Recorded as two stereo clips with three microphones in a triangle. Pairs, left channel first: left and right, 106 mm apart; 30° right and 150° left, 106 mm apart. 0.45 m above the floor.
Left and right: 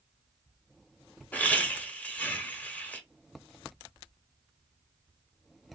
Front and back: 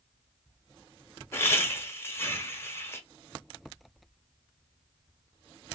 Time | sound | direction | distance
1.3 | laughter | 20° left | 1.0 m